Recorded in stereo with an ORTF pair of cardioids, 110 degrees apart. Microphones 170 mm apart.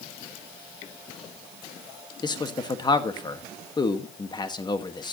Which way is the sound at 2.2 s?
25° left.